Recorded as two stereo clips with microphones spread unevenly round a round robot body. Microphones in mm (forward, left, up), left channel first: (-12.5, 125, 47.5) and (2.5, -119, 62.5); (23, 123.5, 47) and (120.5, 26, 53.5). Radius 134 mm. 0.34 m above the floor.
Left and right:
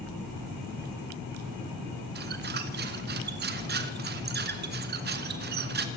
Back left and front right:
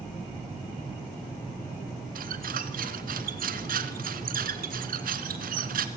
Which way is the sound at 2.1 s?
35° right.